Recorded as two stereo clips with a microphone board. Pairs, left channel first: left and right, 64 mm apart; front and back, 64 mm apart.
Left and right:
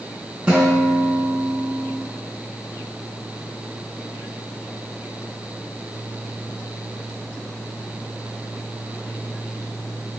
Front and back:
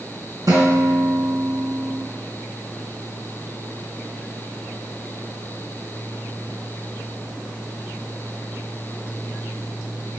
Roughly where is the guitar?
Behind.